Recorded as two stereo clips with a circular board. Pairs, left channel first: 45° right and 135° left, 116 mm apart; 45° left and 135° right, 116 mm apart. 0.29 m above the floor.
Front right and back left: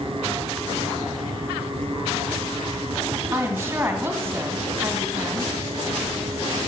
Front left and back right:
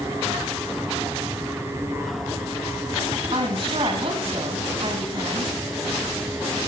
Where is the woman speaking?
160° right, 2.5 m.